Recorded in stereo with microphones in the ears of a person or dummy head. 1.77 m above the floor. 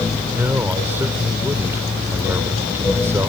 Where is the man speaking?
15° right (ahead or behind).